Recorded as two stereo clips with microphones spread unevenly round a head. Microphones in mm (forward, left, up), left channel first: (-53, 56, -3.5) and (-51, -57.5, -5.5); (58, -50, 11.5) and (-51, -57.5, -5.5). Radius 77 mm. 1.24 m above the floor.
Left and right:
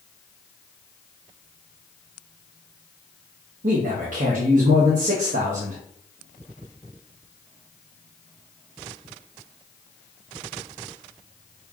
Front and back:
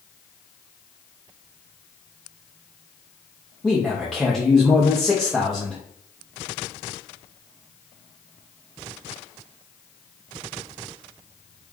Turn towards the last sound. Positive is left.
turn(degrees=-85)